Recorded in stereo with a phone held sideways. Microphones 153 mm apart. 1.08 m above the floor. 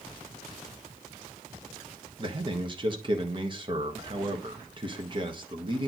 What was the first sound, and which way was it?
A man speaking, 30° right (ahead or behind).